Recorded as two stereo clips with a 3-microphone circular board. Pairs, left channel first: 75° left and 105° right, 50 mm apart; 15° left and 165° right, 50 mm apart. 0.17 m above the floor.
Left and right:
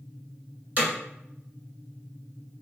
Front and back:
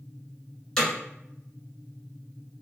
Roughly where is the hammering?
Ahead right.